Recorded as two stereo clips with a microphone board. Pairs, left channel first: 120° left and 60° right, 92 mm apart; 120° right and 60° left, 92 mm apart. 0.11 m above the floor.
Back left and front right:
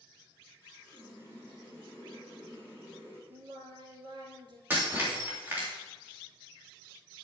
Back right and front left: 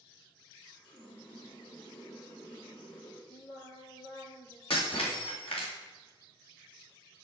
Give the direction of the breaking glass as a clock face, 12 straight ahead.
4 o'clock.